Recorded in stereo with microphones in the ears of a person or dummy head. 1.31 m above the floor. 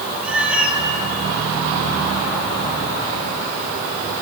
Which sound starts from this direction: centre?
A cat meowing, at 0.2 s.